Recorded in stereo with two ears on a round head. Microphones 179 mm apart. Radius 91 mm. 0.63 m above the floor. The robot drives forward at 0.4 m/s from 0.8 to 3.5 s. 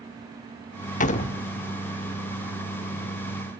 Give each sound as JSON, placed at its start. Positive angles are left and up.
{"t": 1.0, "sound": "a door slam", "side_deg": 40, "distance_m": 0.9}